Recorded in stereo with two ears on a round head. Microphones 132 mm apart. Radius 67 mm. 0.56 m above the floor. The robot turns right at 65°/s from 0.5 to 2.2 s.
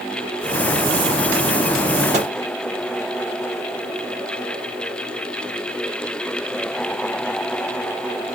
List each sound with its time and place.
2.1 s a microwave: 50° right (ahead or behind), 1.2 m